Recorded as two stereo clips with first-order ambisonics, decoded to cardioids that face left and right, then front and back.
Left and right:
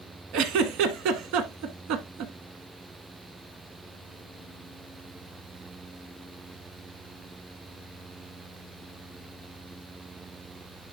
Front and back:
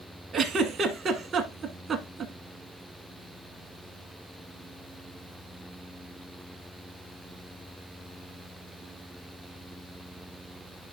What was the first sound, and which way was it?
A giggle, 115° right.